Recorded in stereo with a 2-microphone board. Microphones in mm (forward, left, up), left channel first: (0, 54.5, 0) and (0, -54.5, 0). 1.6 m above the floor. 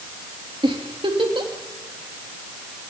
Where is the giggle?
55° right (ahead or behind), 3 m.